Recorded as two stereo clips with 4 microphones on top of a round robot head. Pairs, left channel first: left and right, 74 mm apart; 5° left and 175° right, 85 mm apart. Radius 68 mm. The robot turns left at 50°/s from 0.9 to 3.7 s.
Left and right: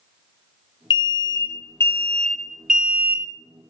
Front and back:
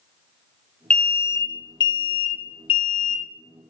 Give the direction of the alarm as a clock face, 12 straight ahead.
9 o'clock.